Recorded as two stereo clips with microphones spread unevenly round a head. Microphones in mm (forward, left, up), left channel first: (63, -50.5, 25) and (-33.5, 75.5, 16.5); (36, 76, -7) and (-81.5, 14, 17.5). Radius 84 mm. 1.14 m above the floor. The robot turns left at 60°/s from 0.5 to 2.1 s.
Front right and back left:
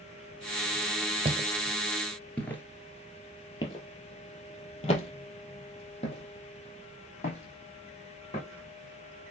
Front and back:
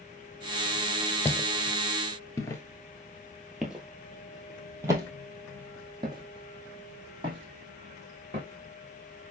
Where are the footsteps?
100° left, 1.3 m; by 9.3 s 105° right, 4 m.